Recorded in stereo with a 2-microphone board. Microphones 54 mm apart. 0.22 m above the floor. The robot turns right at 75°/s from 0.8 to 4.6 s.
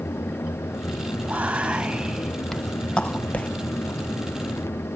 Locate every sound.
1.2 s whispering: 25° right (ahead or behind), 1.0 m; by 3.5 s 25° left (ahead or behind), 1.0 m